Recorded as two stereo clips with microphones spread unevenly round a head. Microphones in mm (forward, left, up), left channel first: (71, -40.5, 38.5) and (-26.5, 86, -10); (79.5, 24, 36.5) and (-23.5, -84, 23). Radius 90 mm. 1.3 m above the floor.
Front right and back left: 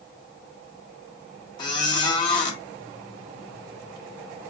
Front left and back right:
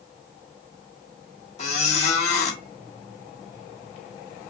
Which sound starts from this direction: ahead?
A squeak, at 1.6 s.